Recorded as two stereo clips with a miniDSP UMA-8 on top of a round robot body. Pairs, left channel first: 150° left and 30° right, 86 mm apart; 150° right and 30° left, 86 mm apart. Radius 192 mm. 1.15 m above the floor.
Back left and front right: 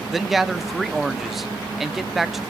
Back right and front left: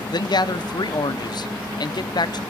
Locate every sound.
0.1 s a man speaking: 120° right, 1.0 m